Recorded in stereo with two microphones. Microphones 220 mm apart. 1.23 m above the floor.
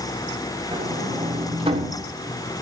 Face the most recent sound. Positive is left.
turn(degrees=-25)  # may be behind; listen again after turning